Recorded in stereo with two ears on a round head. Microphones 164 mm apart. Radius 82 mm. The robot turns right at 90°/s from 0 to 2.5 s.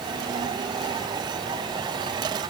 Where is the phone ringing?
No phone ringing in this recording.